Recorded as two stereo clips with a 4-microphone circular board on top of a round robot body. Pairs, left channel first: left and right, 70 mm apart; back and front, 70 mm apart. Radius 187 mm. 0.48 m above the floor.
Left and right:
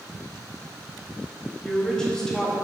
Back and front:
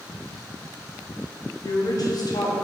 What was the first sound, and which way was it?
A woman speaking, 170° left.